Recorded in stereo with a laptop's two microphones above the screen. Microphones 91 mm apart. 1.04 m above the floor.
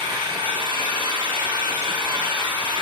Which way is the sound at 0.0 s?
75° right (ahead or behind).